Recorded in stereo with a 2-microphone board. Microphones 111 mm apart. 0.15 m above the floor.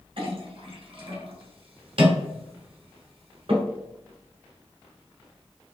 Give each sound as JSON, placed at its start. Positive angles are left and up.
{"t": 0.2, "sound": "a clink", "side_deg": -55, "distance_m": 1.4}